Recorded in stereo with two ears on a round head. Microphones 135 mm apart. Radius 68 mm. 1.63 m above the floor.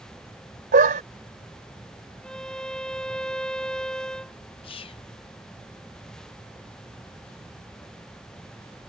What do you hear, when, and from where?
0.7 s a dog barking: 60° right (ahead or behind)
2.2 s a violin: 5° left (ahead or behind)
4.6 s whispering: 35° left (ahead or behind)